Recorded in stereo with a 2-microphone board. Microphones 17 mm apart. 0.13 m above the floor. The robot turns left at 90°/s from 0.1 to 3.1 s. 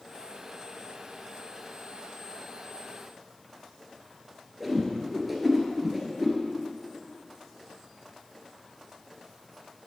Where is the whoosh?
5° right (ahead or behind), 1.6 m.